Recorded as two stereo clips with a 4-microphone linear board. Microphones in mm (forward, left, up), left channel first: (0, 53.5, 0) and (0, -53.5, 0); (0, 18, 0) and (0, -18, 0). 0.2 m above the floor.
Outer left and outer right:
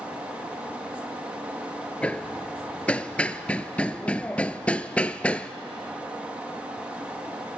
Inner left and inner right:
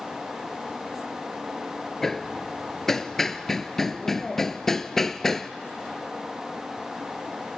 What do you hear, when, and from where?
2.0 s hammering: 15° left (ahead or behind), 0.7 m